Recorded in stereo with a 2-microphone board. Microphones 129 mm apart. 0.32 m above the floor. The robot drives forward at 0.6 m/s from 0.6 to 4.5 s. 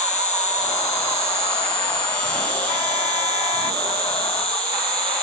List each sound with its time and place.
0.0 s an insect: 10° left (ahead or behind), 2.5 m; by 5.2 s 5° left (ahead or behind), 5 m